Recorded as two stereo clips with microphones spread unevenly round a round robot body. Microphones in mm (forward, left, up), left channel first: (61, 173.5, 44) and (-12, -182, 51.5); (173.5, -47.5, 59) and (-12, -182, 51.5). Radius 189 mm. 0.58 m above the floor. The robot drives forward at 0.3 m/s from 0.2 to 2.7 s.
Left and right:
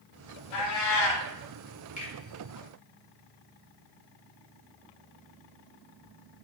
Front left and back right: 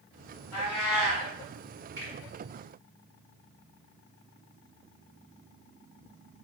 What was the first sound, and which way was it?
A cat meowing, 80° left.